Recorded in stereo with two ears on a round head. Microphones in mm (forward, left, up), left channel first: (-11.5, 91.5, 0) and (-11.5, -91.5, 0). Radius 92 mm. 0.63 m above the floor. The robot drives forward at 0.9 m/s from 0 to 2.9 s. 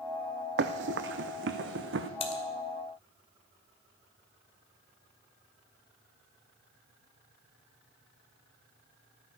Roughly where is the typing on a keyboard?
Left.